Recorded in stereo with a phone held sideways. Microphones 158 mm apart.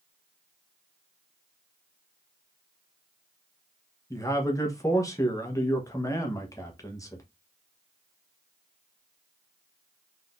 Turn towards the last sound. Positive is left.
turn(degrees=20)  # may be behind; listen again after turning